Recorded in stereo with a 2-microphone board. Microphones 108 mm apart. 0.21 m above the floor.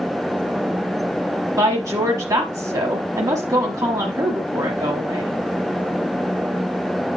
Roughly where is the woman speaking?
Right.